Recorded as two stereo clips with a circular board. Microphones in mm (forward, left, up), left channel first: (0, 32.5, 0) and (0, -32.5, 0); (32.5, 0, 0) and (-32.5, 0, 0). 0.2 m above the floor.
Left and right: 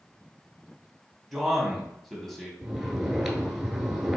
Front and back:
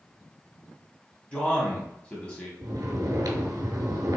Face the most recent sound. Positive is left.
turn(degrees=-175)